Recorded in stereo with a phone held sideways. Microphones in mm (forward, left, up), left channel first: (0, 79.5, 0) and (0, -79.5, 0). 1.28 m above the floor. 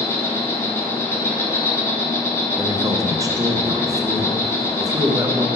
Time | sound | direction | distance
0.0 | an insect | 15° left (ahead or behind) | 0.9 m
2.6 | a man speaking | 20° right (ahead or behind) | 0.7 m